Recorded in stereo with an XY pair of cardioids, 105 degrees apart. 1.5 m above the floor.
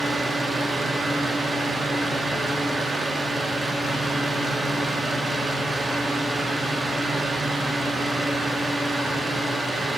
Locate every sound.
0.0 s a fan: 25° right, 1.4 m